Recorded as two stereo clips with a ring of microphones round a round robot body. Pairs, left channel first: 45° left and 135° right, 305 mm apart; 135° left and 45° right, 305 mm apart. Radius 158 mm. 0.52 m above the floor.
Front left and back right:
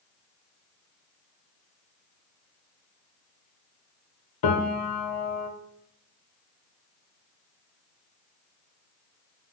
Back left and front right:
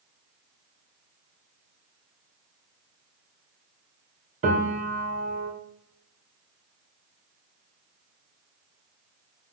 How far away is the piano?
About 0.9 m.